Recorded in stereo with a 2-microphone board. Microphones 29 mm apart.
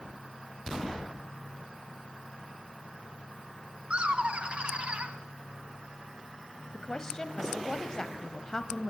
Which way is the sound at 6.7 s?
20° left (ahead or behind).